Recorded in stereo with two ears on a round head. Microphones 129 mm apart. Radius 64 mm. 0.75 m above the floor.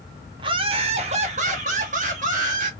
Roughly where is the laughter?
Right.